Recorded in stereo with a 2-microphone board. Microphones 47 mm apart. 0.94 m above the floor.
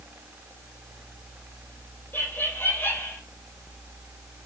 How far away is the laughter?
About 4 m.